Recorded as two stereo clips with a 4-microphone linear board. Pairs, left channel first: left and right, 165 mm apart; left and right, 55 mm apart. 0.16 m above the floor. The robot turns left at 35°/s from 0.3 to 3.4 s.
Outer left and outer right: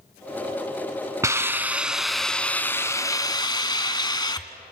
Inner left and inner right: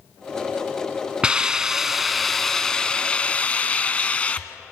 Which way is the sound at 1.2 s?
150° right.